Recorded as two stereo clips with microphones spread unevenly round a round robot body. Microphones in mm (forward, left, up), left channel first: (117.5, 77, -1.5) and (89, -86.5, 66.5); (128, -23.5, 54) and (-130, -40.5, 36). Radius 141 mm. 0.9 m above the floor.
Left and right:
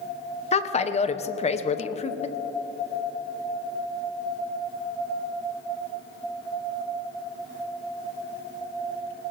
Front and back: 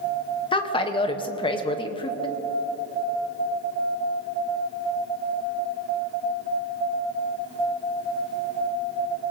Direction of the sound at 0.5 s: 75° left.